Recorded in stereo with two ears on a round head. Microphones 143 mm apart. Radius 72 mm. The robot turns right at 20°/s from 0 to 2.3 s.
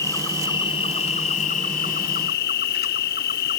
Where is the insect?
20° left, 0.7 m; by 3.6 s 65° left, 0.7 m.